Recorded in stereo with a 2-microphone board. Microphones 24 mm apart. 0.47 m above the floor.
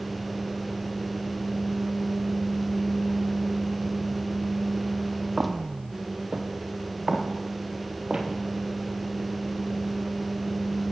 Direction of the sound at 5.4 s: 35° right (ahead or behind).